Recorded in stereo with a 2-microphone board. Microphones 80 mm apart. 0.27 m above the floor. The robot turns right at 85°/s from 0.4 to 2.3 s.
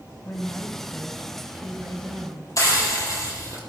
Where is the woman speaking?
145° left, 1.6 m; by 2.5 s 55° right, 1.6 m.